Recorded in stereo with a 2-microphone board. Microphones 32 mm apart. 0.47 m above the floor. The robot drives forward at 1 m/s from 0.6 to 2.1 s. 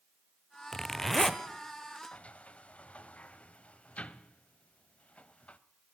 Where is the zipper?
10° left (ahead or behind), 0.7 m; by 1.4 s 5° left (ahead or behind), 1.3 m.